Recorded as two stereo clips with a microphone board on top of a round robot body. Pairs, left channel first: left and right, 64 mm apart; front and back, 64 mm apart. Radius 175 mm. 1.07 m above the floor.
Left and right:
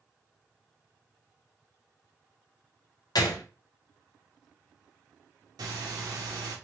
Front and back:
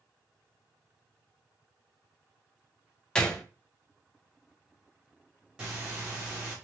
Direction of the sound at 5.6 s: 100° right.